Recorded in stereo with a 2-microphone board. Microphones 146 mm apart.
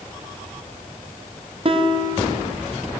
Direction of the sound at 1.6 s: 40° right (ahead or behind).